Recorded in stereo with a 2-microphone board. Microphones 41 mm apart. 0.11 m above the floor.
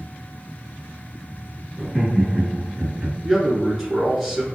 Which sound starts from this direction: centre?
A man speaking, at 3.2 s.